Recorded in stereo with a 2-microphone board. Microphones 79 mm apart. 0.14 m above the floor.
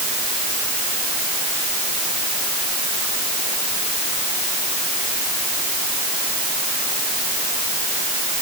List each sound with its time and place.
Only background noise.